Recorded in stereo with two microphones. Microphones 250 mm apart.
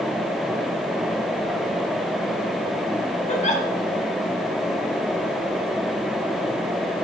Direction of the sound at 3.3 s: 30° left (ahead or behind).